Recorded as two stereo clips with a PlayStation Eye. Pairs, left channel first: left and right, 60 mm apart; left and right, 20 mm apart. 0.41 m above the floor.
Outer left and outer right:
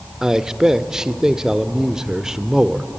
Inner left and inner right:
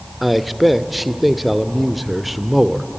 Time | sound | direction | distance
0.2 | a man speaking | 10° right (ahead or behind) | 0.8 m